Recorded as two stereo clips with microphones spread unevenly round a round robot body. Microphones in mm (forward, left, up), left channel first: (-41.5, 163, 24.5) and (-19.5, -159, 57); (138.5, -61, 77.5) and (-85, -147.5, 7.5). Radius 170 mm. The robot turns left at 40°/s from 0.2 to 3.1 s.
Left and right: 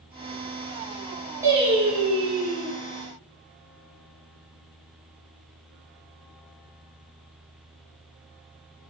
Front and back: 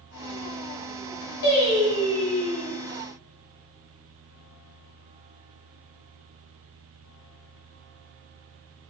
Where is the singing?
Straight ahead, 1.4 m; by 2.7 s 55° right, 1.4 m.